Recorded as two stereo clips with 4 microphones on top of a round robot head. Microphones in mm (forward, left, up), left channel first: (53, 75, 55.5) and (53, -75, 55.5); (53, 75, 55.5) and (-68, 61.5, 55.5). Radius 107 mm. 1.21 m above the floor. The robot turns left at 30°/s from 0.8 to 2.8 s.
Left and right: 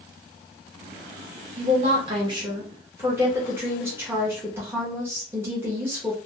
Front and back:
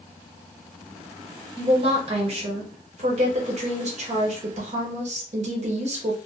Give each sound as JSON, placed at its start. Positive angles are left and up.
{"t": 1.6, "sound": "a woman speaking", "azimuth_deg": -125, "distance_m": 0.8}